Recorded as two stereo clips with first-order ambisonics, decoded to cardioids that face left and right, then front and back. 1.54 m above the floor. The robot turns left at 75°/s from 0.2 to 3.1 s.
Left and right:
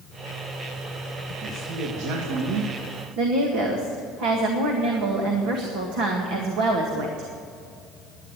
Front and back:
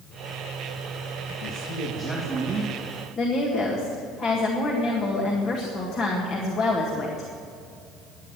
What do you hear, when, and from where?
1.4 s a man speaking: 30° right, 2 m; by 3.1 s 155° right, 2 m
3.2 s a woman speaking: 60° right, 1.8 m